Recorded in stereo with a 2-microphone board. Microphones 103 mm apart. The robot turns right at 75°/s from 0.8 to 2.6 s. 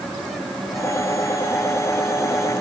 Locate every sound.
Only background noise.